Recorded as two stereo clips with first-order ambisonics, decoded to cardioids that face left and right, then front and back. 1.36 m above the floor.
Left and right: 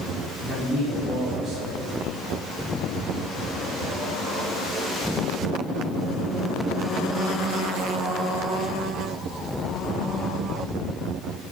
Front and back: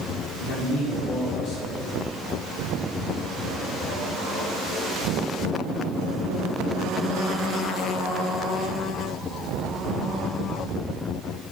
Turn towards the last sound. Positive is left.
turn(degrees=-45)